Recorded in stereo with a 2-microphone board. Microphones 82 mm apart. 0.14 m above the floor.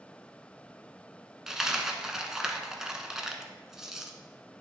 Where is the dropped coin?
5° right (ahead or behind), 0.7 m.